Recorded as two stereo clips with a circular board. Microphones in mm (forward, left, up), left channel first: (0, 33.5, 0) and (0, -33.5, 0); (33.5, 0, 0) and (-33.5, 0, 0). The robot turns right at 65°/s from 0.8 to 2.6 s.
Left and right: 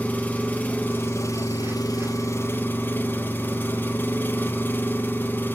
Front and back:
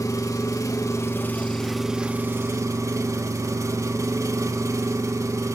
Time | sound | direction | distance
0.0 | an engine running | 30° left | 0.8 m